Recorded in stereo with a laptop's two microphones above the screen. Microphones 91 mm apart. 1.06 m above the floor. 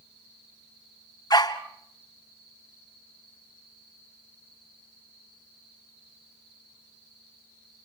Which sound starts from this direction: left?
A dog barking, at 1.3 s.